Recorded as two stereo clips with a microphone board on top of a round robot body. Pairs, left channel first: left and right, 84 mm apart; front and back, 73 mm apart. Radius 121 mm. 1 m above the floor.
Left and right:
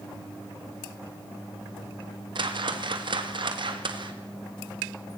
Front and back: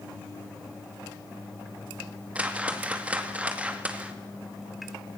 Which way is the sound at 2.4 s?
105° right.